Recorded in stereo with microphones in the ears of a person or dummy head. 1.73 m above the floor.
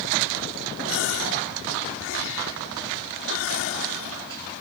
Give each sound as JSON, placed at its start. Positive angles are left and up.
{"t": 0.9, "sound": "a gasp", "side_deg": 80}